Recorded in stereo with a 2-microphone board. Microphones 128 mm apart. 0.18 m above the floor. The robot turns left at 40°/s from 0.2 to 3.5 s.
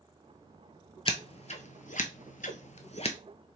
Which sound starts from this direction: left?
Scissors, at 1.1 s.